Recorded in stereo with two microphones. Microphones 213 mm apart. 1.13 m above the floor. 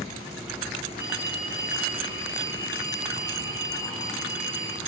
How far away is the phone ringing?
About 7.5 m.